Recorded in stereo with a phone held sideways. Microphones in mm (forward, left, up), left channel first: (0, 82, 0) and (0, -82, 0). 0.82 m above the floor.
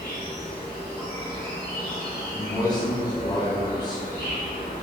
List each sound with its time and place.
0.0 s an insect: 60° left (ahead or behind), 1.0 m
2.3 s a man speaking: 25° left (ahead or behind), 0.6 m